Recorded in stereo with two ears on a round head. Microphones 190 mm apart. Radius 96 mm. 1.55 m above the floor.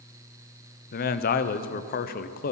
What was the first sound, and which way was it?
A man speaking, 40° left (ahead or behind).